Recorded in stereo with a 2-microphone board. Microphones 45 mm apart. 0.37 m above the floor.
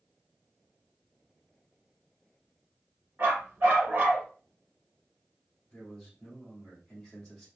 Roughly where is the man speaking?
Centre.